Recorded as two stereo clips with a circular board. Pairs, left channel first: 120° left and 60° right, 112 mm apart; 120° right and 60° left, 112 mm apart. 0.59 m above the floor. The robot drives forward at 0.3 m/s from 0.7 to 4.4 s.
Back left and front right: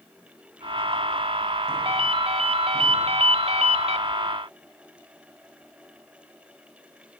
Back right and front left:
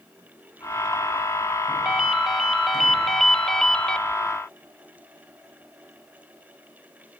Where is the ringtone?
25° right, 1.8 m; by 4.0 s 35° right, 1.3 m.